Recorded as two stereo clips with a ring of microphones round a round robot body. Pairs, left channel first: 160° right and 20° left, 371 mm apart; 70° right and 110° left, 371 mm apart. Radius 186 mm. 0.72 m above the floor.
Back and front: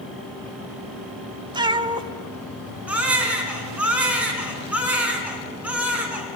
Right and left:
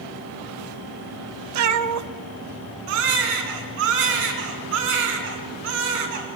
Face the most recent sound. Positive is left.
turn(degrees=110)